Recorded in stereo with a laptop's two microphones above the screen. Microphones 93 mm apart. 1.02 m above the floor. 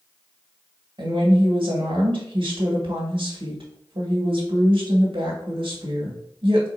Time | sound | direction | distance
1.0 | a woman speaking | 70° right (ahead or behind) | 1.9 m